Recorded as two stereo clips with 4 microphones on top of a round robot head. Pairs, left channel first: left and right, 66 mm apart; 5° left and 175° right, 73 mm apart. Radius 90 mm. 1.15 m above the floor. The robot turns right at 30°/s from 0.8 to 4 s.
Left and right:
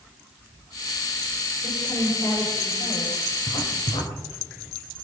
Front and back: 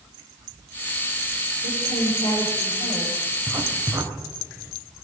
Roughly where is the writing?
Left.